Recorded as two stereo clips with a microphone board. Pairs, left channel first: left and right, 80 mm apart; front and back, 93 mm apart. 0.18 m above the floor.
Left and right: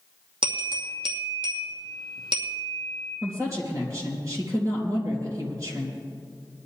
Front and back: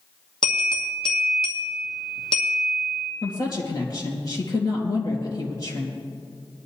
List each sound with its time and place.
0.4 s a bell: 85° right, 2.5 m
3.2 s a woman speaking: 45° right, 3.5 m